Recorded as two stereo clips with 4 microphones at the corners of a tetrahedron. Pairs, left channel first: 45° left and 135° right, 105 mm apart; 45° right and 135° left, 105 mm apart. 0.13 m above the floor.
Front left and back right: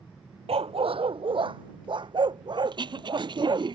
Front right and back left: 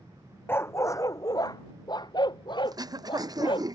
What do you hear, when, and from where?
0.5 s a dog barking: 115° right; by 3.6 s 85° right
2.6 s throat clearing: 175° right